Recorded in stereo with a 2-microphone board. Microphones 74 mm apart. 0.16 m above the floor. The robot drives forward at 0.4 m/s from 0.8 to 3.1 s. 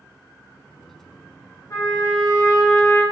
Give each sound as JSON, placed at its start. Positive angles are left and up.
{"t": 1.7, "sound": "a trumpet", "side_deg": 45, "distance_m": 1.2}